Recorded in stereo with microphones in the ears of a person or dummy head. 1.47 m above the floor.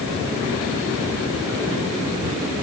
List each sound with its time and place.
Only background noise.